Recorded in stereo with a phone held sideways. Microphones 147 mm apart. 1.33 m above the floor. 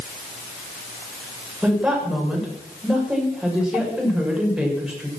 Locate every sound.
1.6 s a woman speaking: 5° right (ahead or behind), 7 m